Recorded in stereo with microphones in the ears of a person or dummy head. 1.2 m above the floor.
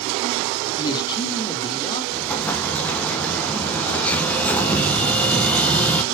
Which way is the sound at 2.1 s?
10° left (ahead or behind).